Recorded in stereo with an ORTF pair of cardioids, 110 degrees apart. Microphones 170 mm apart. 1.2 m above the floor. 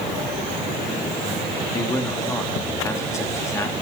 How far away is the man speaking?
About 2.5 m.